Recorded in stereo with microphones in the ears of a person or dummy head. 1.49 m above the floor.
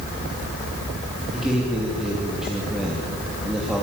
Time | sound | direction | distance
1.3 | a man speaking | centre (ahead or behind) | 2.5 m